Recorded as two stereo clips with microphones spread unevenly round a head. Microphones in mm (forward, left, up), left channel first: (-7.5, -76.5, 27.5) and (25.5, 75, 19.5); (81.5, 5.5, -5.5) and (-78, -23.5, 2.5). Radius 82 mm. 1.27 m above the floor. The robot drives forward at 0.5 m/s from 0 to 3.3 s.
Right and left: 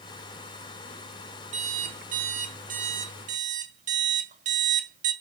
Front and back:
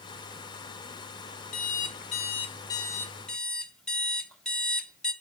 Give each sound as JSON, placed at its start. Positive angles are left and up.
{"t": 1.5, "sound": "an alarm clock", "azimuth_deg": 35, "distance_m": 1.2}